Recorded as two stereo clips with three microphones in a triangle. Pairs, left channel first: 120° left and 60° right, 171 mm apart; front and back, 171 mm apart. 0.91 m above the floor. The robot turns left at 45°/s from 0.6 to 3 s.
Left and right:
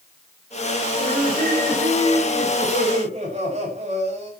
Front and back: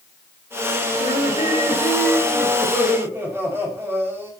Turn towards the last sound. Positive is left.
turn(degrees=-105)